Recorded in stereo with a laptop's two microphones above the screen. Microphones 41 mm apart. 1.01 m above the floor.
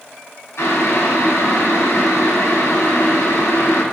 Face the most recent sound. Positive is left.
turn(degrees=80)